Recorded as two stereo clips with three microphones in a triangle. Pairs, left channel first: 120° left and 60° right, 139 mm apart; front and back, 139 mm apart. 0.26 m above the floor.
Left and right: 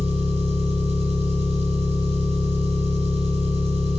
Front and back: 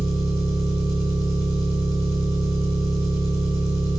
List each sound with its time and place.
0.0 s an engine running: 55° right, 0.8 m